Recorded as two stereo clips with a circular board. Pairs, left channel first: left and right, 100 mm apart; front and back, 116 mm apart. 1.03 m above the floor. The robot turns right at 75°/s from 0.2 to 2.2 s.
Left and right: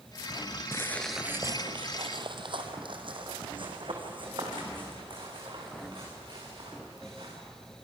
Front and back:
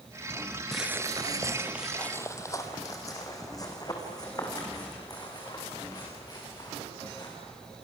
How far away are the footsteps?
About 1.0 m.